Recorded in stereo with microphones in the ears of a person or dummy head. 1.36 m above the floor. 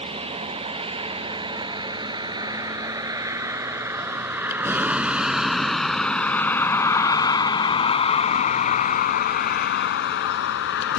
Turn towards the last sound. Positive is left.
turn(degrees=70)  # may be behind; listen again after turning